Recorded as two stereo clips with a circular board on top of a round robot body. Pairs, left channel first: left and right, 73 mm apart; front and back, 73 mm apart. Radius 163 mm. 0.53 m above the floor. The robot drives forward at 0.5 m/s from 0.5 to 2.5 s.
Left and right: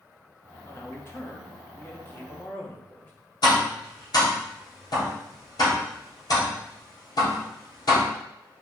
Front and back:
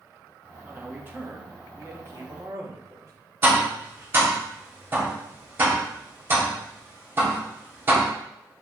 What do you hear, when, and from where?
0.7 s a man speaking: 120° left, 1.7 m; by 3.1 s 150° left, 2 m
3.4 s tapping: 120° left, 3 m